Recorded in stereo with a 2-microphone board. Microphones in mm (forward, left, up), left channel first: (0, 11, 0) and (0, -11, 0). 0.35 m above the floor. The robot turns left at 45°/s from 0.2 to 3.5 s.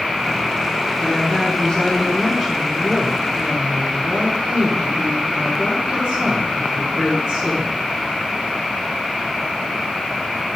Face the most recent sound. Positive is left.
turn(degrees=-60)